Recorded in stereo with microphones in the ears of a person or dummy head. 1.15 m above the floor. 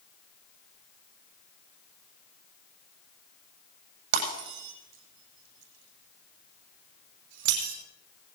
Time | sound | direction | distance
4.1 | breaking glass | 70° right (ahead or behind) | 9.5 m